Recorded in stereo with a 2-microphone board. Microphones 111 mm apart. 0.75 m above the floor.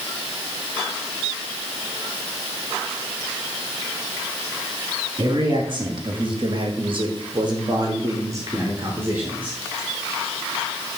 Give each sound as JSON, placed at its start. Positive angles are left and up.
{"t": 5.2, "sound": "a man speaking", "side_deg": -40, "distance_m": 1.8}